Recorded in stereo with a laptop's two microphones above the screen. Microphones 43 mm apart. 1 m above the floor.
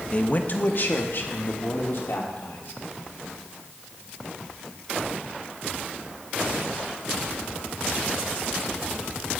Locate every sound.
0.1 s a man speaking: 30° left (ahead or behind), 0.7 m; by 2.8 s 65° left (ahead or behind), 2.5 m